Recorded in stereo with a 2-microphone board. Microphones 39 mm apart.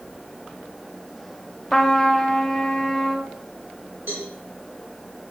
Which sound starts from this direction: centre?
A trumpet, at 1.7 s.